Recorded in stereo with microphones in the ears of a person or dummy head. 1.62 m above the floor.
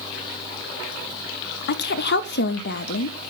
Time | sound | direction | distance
1.7 | a woman speaking | 65° left (ahead or behind) | 0.5 m